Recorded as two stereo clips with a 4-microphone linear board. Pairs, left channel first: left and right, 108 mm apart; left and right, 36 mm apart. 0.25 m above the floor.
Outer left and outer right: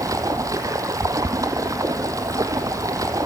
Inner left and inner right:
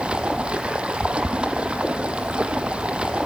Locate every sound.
0.0 s running water: 30° right (ahead or behind), 1.5 m